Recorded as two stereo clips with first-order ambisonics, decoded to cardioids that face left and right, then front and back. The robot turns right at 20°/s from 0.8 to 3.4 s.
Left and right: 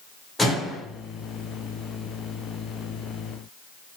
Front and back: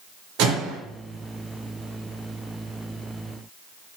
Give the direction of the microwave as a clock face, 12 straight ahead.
6 o'clock.